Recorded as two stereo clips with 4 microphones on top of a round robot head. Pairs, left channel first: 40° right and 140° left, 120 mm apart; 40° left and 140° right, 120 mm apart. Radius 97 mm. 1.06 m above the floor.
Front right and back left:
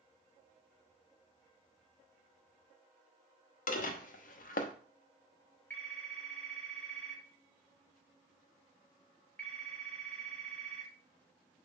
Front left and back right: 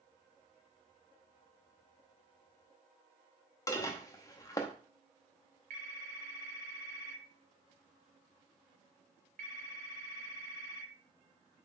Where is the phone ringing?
120° right, 2.5 m.